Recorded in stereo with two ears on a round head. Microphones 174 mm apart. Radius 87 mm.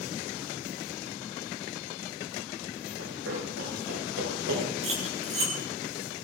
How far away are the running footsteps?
About 9.5 m.